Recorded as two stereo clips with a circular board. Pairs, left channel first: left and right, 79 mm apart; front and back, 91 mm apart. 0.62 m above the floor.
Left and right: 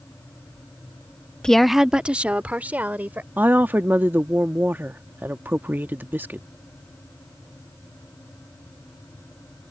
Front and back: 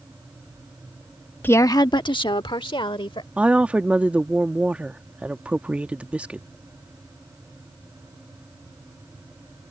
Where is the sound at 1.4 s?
25° left; by 3.3 s 20° right.